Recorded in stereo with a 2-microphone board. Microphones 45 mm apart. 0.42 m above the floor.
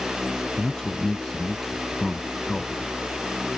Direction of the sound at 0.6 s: 20° left (ahead or behind).